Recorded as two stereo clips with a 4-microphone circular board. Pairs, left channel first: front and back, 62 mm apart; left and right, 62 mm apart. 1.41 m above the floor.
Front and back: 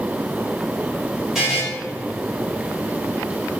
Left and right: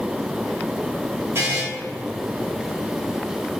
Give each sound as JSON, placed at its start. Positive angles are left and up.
{"t": 1.4, "sound": "a buzzer", "azimuth_deg": -100, "distance_m": 1.1}